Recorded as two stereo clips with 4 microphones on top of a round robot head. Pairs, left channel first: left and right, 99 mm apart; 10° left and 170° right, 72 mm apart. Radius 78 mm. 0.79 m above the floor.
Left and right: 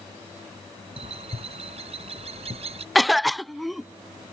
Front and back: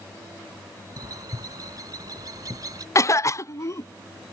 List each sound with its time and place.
1.0 s a bird: 120° right
3.0 s a cough: straight ahead